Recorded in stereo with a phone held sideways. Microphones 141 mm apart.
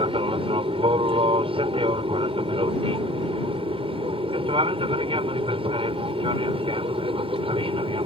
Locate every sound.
0.0 s an aircraft: 40° right (ahead or behind)